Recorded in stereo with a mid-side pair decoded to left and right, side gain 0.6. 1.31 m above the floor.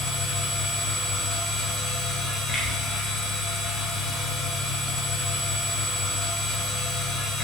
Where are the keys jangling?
I don't hear keys jangling.